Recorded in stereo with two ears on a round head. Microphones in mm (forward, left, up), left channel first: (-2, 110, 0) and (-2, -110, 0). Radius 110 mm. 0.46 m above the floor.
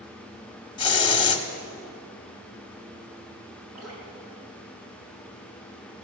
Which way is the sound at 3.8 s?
70° right (ahead or behind).